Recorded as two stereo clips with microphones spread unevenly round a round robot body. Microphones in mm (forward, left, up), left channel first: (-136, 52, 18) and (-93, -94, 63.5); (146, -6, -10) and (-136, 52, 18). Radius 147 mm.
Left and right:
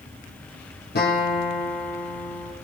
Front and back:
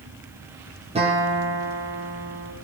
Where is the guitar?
100° left, 8 m.